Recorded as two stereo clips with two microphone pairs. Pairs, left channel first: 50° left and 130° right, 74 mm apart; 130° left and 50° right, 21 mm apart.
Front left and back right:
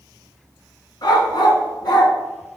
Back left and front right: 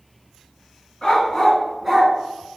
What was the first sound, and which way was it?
A dog barking, 65° left.